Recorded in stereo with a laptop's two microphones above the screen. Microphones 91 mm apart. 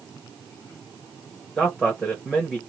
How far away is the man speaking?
About 1.1 m.